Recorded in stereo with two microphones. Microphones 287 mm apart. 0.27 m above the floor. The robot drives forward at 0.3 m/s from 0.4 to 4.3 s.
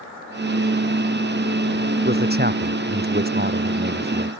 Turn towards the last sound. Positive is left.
turn(degrees=-30)  # may be behind; listen again after turning